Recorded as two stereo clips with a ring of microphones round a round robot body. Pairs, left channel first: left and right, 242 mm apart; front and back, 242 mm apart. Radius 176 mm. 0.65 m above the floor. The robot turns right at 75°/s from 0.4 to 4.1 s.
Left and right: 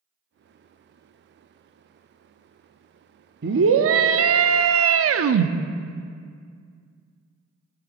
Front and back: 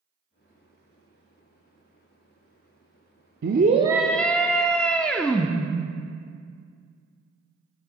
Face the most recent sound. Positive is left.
turn(degrees=-85)